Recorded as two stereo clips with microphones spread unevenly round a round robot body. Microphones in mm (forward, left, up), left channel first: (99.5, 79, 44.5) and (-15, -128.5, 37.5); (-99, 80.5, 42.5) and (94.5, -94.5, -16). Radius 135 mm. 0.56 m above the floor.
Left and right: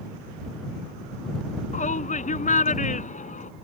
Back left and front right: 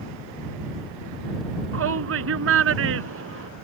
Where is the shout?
Straight ahead.